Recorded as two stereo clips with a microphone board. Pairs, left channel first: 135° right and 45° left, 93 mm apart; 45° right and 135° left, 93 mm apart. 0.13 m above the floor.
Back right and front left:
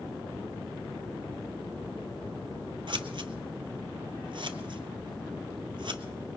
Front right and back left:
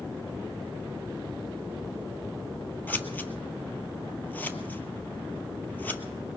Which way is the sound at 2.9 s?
25° left.